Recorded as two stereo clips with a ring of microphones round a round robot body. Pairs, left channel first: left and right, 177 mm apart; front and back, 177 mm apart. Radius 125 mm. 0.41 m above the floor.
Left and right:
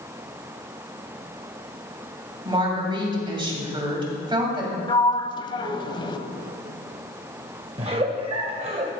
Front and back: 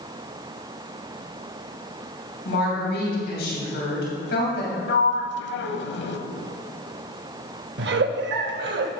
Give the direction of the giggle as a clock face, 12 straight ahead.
5 o'clock.